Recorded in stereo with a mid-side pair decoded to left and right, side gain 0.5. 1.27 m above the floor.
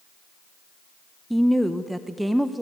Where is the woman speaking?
5° right, 0.9 m.